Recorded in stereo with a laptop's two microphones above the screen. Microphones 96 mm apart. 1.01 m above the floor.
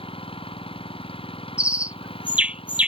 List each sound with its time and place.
0.0 s an engine running: 80° left
1.6 s a bird: 15° right (ahead or behind)